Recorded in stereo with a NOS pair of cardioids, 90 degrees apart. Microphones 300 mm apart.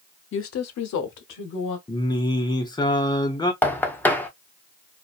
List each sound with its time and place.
0.3 s a woman speaking: 40° left, 0.7 m; by 1.8 s 75° left, 1.3 m
1.9 s singing: 15° left, 0.7 m
3.6 s knocking: 5° left, 0.7 m